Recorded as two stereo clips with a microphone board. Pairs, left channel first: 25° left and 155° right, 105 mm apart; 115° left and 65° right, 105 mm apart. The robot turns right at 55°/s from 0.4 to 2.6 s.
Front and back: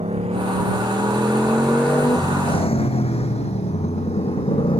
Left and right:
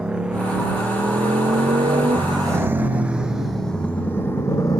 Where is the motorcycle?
150° right; by 4.8 s 55° left.